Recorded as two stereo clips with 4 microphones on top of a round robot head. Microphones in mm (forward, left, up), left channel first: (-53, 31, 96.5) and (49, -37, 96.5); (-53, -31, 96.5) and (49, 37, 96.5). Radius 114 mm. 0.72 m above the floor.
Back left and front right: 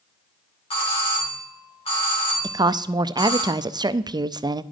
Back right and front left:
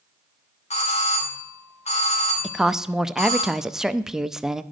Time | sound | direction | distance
0.7 | a doorbell | 175° right | 3 m
2.4 | a woman speaking | 50° right | 0.5 m